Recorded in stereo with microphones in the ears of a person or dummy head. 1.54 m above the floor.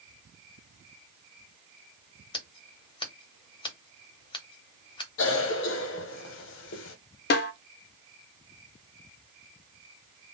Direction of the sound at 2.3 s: 25° left (ahead or behind).